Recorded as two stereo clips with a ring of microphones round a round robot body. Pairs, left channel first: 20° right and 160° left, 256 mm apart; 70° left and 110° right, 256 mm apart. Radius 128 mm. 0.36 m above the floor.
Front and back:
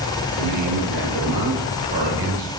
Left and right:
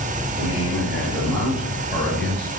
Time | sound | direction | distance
0.4 | a man speaking | 165° left | 7.5 m